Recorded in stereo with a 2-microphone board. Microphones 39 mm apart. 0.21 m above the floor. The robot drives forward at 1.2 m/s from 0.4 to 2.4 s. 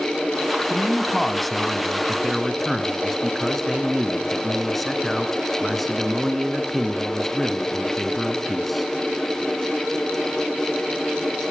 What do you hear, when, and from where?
0.7 s a man speaking: 5° left (ahead or behind), 1.6 m; by 8.9 s centre (ahead or behind), 3 m